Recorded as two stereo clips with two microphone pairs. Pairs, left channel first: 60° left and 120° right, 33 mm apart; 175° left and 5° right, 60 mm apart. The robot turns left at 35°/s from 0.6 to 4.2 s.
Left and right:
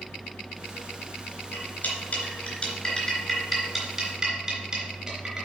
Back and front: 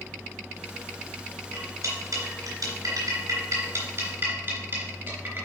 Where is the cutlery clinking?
30° left, 3 m; by 5.5 s 60° right, 3 m.